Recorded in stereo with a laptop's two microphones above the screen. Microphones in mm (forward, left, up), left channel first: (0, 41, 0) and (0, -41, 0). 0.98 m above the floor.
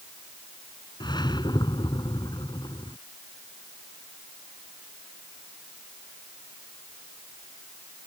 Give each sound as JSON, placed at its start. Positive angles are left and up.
{"t": 1.0, "sound": "a whoosh", "side_deg": 60}